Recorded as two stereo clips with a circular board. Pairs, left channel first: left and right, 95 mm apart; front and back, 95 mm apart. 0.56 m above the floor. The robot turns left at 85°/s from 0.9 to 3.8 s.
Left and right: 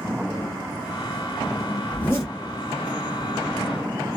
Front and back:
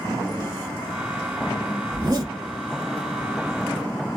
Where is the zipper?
165° left, 2 m; by 2.3 s 130° left, 2 m.